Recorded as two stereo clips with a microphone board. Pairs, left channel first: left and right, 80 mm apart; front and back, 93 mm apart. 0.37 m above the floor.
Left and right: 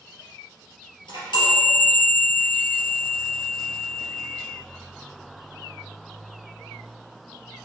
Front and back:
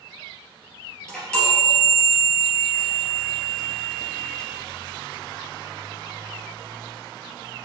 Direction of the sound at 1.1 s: 80° left.